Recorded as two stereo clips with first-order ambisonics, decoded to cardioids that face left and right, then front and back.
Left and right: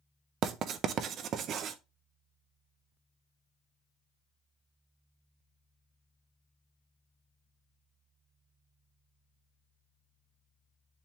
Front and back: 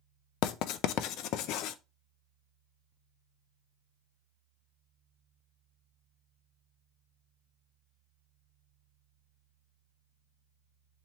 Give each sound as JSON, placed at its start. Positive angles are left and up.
{"t": 0.4, "sound": "writing", "azimuth_deg": -35, "distance_m": 0.6}